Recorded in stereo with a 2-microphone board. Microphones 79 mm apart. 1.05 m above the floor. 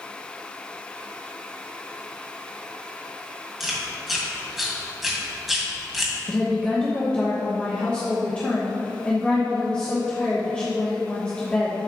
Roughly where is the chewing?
Centre.